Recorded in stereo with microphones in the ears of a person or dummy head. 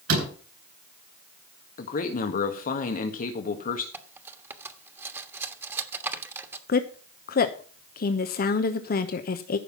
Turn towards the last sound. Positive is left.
turn(degrees=45)  # may be behind; listen again after turning